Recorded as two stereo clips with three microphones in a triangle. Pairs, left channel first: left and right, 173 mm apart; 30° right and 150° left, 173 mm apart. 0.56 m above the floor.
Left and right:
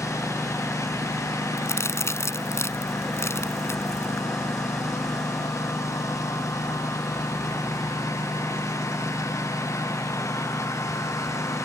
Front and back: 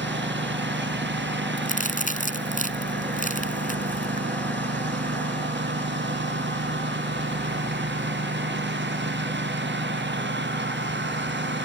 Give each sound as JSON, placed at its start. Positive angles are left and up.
{"t": 0.0, "sound": "a lawn mower", "azimuth_deg": 165}
{"t": 1.6, "sound": "a crack", "azimuth_deg": 15}